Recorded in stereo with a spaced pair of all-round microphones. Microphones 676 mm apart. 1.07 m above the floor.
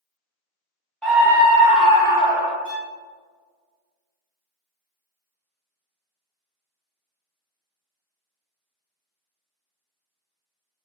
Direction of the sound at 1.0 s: Centre (ahead or behind).